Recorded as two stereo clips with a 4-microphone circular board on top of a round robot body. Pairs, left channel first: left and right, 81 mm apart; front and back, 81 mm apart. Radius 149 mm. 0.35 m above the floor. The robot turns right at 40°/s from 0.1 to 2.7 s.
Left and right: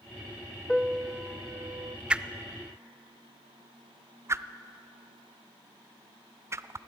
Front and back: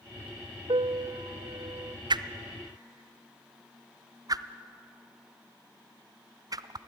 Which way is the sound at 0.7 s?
Straight behind.